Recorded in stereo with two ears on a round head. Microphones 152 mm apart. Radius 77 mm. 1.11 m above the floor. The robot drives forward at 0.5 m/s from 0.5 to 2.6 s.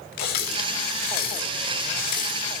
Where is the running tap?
65° left (ahead or behind), 6.5 m; by 2.5 s 55° left (ahead or behind), 7 m.